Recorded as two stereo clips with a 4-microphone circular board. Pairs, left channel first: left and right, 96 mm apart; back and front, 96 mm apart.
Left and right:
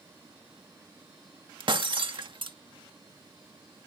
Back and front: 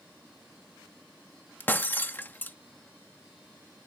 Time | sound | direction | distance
1.6 | breaking glass | 110° right | ?